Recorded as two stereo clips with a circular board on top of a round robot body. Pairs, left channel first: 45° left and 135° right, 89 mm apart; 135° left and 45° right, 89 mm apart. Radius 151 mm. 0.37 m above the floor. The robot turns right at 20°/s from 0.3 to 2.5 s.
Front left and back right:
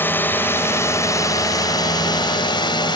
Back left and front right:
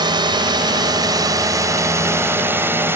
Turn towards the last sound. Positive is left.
turn(degrees=20)